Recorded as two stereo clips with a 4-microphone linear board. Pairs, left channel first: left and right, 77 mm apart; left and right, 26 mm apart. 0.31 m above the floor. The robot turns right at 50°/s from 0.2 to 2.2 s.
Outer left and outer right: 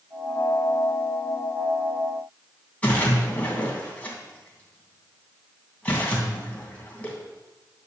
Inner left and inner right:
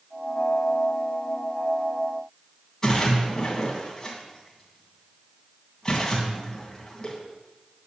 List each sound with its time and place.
2.8 s a splash: 15° left (ahead or behind), 2.5 m